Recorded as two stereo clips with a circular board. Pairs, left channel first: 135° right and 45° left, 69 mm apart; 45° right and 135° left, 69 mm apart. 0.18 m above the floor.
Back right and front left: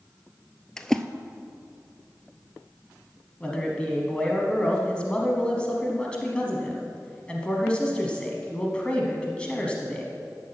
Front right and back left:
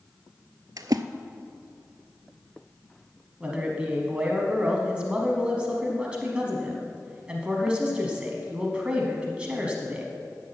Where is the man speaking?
Straight behind, 1.1 m.